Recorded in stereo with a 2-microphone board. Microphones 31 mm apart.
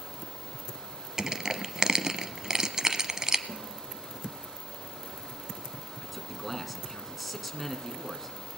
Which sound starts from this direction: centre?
A man speaking, at 6.0 s.